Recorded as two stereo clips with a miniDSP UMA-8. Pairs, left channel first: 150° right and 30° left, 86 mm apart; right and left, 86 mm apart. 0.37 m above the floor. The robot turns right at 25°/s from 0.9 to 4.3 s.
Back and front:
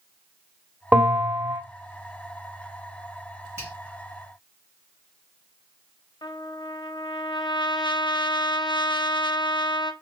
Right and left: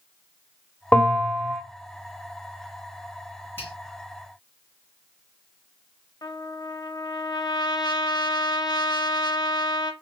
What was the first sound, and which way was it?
A bell, 30° right.